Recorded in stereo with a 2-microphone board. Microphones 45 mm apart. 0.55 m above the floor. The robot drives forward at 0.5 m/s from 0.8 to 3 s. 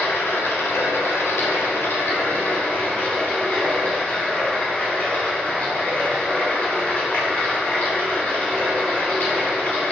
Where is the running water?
75° left (ahead or behind), 0.8 m; by 9.9 s 40° left (ahead or behind), 1.2 m.